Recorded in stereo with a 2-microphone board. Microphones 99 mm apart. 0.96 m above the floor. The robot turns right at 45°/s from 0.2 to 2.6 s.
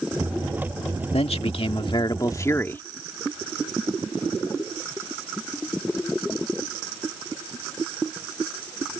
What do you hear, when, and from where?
1.1 s a man speaking: 90° left; by 2.8 s 155° left